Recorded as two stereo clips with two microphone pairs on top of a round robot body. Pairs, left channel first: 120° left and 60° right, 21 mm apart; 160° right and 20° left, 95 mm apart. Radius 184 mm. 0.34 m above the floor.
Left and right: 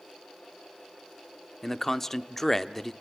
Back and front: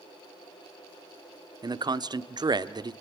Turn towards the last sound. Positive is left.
turn(degrees=45)